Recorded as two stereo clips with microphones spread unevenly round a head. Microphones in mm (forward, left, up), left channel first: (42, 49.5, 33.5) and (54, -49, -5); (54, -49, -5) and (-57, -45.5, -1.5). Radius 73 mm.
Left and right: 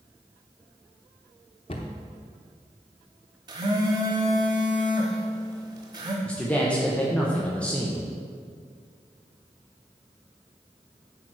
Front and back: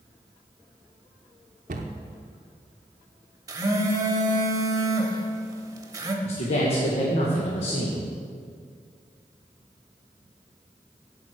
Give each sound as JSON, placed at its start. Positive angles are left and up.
{"t": 1.7, "sound": "a cupboard door", "azimuth_deg": 155, "distance_m": 0.7}
{"t": 3.5, "sound": "a phone buzzing", "azimuth_deg": -155, "distance_m": 1.0}
{"t": 6.2, "sound": "a man speaking", "azimuth_deg": 5, "distance_m": 1.1}